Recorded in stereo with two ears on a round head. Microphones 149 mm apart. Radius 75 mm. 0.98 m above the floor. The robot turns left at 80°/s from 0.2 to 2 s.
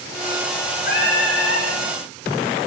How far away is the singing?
About 9.5 m.